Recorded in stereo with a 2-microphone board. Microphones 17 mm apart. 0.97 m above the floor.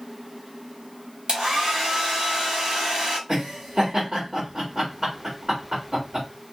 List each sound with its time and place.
1.3 s a hair dryer: 80° right, 1.7 m
3.3 s laughter: 55° right (ahead or behind), 1.6 m